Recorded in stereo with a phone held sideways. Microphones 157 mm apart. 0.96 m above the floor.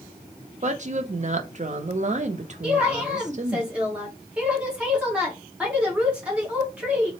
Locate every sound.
0.6 s a woman speaking: 50° right (ahead or behind), 0.6 m
2.6 s a woman speaking: 10° right (ahead or behind), 1.4 m